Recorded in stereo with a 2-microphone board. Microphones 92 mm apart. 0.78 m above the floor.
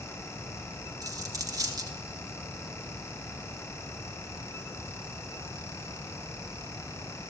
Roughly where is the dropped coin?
Right.